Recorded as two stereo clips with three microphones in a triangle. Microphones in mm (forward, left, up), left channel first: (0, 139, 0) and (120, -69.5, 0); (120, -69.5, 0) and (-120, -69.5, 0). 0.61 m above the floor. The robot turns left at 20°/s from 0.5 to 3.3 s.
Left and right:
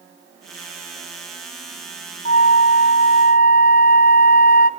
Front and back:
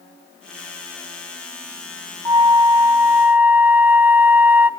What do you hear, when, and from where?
2.2 s a flute: 125° left, 0.5 m; by 4.7 s 105° left, 0.5 m